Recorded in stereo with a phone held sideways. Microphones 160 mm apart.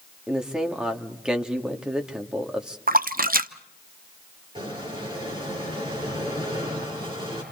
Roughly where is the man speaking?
Centre.